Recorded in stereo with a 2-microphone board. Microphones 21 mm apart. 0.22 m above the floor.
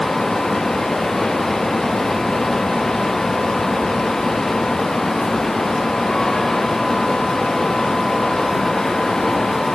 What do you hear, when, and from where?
Only background noise.